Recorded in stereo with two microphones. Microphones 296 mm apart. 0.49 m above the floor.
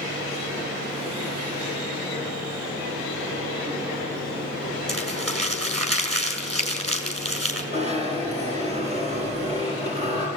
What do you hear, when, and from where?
4.9 s crumpling: 55° right (ahead or behind), 4 m
7.7 s a zipper: 20° right (ahead or behind), 5.5 m